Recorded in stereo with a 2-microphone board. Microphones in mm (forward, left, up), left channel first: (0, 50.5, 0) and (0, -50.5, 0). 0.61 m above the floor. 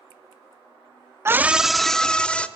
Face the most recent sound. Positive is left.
turn(degrees=10)  # may be behind; listen again after turning